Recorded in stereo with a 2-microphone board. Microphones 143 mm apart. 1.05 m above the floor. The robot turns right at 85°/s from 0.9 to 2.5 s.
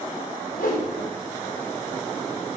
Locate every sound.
0.5 s a whoosh: 80° left, 4 m